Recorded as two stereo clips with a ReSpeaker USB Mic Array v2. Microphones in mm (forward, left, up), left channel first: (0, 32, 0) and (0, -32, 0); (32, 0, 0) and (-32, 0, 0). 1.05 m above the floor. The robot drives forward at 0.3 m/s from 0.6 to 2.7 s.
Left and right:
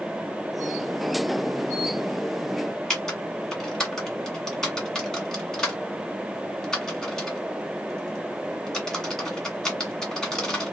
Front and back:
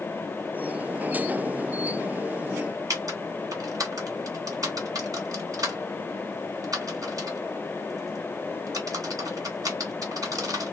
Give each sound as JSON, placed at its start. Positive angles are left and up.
{"t": 2.9, "sound": "typing on a keyboard", "azimuth_deg": 170, "distance_m": 1.6}